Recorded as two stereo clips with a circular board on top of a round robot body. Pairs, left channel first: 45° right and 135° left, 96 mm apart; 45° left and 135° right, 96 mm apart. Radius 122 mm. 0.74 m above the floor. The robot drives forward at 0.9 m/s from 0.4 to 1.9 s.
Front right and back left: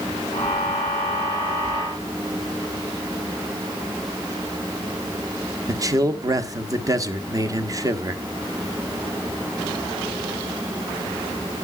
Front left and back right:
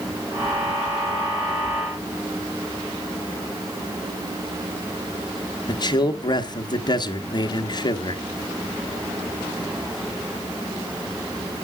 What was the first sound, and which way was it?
A man speaking, 85° left.